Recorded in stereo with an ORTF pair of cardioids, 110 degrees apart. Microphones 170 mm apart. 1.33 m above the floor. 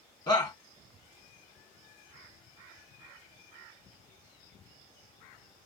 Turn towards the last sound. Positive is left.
turn(degrees=25)